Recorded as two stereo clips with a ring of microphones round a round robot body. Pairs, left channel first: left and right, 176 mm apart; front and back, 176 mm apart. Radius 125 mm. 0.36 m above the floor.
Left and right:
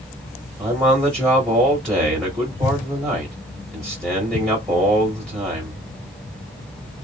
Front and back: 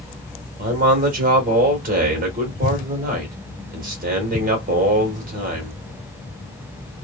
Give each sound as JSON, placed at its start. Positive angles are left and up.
{"t": 0.6, "sound": "a man speaking", "azimuth_deg": 175, "distance_m": 1.3}